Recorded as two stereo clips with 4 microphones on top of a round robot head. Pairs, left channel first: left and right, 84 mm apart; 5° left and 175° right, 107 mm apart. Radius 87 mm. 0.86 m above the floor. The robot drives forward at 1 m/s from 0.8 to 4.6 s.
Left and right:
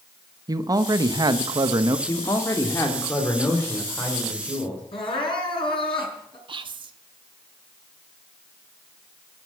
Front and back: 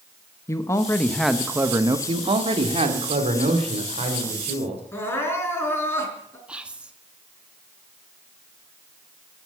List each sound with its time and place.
0.5 s a man speaking: 55° right, 1.1 m; by 2.0 s 130° right, 1.2 m
2.1 s a man speaking: 145° left, 1.9 m; by 4.8 s 165° left, 4 m
4.9 s crying: 70° left, 5 m
6.5 s whispering: 95° right, 1.6 m